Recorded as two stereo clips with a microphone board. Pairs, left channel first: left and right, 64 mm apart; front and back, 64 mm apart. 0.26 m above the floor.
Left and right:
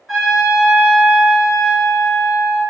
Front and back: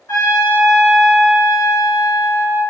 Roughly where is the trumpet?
Ahead.